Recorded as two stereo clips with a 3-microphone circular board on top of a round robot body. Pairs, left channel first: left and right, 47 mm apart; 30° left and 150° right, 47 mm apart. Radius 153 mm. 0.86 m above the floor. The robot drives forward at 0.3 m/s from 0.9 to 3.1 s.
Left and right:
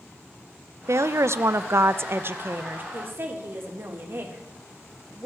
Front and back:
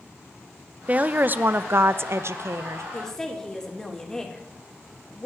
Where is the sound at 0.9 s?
90° right, 0.7 m; by 2.8 s 135° right, 0.9 m.